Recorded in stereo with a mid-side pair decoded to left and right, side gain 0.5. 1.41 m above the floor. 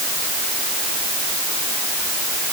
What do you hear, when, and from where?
Only background noise.